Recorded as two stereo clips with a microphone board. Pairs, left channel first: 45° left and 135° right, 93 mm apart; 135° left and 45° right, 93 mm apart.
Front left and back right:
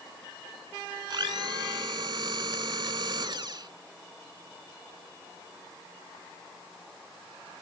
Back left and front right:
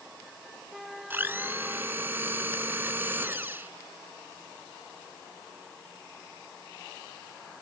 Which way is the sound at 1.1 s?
110° right.